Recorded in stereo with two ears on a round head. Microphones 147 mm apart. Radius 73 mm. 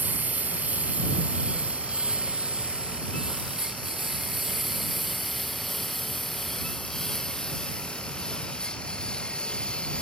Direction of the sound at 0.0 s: 10° right (ahead or behind).